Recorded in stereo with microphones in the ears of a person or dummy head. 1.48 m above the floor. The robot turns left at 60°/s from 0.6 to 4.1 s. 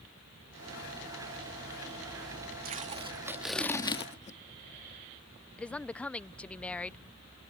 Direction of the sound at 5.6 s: 10° left (ahead or behind).